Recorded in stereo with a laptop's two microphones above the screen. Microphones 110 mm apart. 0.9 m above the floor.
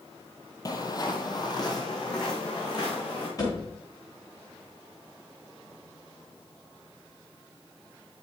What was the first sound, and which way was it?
Footsteps, 35° left (ahead or behind).